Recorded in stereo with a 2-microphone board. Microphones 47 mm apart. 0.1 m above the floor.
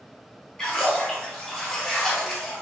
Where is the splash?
15° left (ahead or behind), 1.2 m.